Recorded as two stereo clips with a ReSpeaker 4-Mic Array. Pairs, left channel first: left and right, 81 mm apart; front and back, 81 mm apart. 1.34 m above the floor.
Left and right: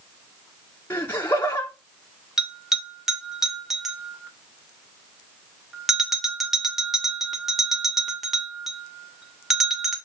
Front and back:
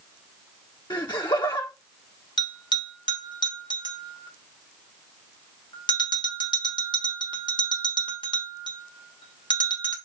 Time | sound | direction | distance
0.9 | laughter | 30° left | 1.1 m
2.4 | a bell | 5° right | 2 m